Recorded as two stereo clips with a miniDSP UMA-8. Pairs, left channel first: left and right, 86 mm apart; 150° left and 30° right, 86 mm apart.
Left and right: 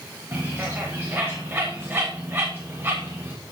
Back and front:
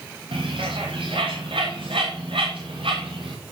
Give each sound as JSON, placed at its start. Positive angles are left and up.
{"t": 0.3, "sound": "a bird", "azimuth_deg": -25, "distance_m": 4.5}